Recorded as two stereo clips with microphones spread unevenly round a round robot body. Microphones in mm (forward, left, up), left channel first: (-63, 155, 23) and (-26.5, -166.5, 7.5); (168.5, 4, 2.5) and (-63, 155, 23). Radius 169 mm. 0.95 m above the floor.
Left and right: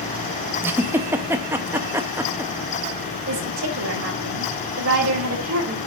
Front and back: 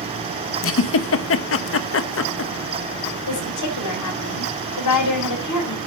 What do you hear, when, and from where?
0.6 s a giggle: straight ahead, 1.0 m
3.3 s a woman speaking: 20° right, 5.5 m